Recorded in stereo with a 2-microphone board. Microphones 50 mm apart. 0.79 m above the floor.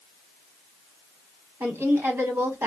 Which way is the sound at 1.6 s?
60° right (ahead or behind).